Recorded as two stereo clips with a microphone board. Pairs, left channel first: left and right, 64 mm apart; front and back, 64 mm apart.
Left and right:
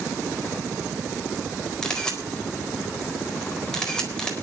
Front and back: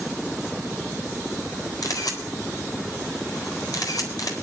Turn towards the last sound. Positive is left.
turn(degrees=15)